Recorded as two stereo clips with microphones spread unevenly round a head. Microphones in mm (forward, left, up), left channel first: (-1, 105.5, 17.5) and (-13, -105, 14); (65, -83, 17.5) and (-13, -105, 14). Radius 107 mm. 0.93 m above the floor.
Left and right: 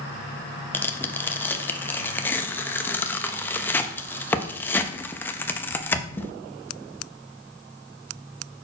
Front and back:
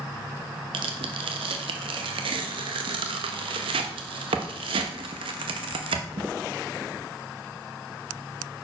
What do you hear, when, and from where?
0.7 s tearing paper: 170° left, 0.5 m